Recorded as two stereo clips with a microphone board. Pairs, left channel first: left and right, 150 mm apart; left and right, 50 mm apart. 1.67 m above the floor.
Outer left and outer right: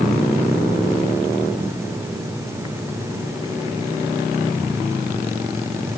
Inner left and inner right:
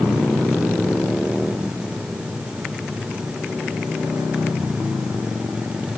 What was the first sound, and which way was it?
Only background noise.